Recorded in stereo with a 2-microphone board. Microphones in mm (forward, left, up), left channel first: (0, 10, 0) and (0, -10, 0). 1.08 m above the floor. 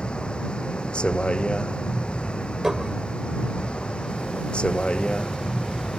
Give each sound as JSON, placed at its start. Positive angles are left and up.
{"t": 0.0, "sound": "a vehicle", "side_deg": 55}
{"t": 2.6, "sound": "dishes clattering", "side_deg": -40}